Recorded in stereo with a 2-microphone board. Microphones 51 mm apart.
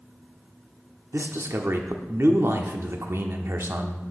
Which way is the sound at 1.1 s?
55° right (ahead or behind).